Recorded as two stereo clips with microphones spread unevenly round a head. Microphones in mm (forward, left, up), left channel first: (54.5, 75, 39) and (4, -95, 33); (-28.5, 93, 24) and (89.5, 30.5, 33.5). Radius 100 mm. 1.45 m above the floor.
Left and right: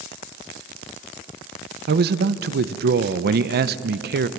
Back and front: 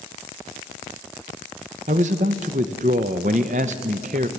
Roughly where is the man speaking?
Right.